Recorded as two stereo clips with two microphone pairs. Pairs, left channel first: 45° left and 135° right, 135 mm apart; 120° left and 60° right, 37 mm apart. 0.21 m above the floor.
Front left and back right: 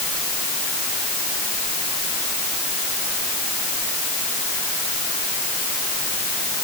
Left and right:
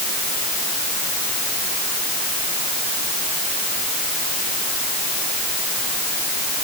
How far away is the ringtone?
I don't hear a ringtone.